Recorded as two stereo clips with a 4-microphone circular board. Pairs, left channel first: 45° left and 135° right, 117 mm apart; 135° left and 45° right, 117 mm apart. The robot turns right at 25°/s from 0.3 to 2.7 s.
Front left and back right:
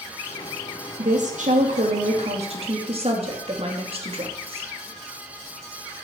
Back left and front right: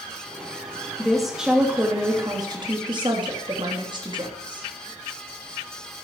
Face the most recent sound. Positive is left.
turn(degrees=-95)